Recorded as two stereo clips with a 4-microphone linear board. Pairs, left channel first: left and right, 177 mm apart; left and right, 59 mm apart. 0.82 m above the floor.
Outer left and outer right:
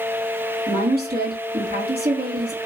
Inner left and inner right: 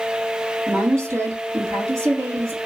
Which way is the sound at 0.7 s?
55° right (ahead or behind).